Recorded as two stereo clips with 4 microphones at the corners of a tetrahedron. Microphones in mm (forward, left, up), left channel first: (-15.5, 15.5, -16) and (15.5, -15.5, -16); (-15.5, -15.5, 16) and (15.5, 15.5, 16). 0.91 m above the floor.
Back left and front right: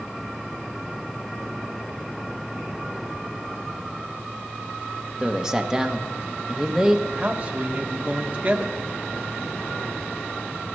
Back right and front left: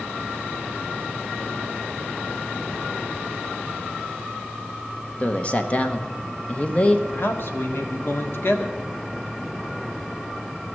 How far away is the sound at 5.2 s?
About 1.0 m.